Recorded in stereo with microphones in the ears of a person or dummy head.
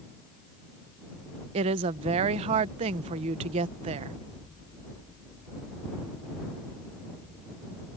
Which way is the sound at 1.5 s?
30° right (ahead or behind).